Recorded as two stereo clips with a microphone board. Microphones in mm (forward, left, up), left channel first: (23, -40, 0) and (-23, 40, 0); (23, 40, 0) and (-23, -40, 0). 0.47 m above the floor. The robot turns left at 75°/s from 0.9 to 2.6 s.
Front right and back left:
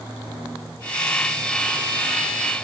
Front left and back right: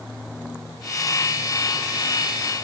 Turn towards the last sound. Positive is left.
No sound to turn to.